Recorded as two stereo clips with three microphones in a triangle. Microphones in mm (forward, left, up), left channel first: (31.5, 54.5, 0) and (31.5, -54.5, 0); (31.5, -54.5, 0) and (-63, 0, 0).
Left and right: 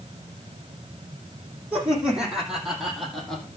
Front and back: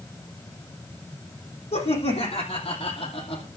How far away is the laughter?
About 5.5 m.